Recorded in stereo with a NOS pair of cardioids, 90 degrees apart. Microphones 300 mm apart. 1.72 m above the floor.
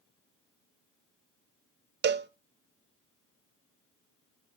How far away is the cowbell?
About 0.7 m.